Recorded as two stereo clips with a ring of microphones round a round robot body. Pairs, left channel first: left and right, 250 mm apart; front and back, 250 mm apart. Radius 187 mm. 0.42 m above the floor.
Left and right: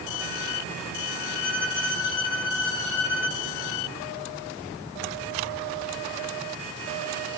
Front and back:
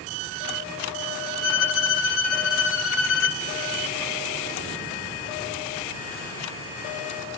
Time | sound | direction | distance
1.4 | a violin | 40° left | 0.6 m